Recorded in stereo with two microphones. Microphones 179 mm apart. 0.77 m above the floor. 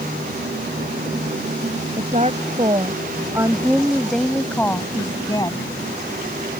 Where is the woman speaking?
40° right (ahead or behind); by 5.7 s 25° left (ahead or behind).